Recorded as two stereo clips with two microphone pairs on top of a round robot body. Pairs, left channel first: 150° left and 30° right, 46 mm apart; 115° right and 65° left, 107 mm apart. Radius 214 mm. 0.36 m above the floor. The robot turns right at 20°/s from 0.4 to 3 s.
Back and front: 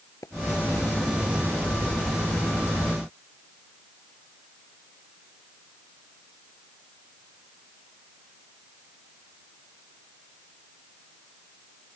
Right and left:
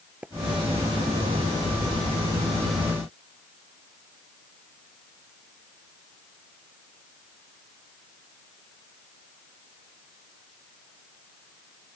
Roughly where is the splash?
Behind left.